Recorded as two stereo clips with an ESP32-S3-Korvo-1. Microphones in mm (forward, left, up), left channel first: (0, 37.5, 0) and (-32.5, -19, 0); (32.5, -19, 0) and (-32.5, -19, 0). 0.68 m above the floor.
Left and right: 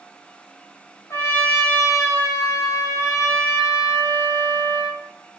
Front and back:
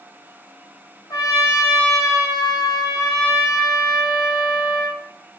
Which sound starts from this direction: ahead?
A trumpet, at 1.1 s.